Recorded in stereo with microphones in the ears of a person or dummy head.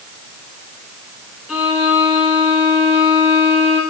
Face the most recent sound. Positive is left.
turn(degrees=5)  # may be behind; listen again after turning